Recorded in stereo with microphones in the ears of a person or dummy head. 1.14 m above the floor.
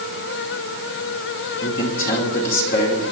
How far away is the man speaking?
About 2.5 m.